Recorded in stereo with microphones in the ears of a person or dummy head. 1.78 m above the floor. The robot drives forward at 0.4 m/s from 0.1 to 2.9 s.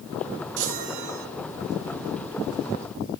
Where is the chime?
65° right (ahead or behind), 2.5 m.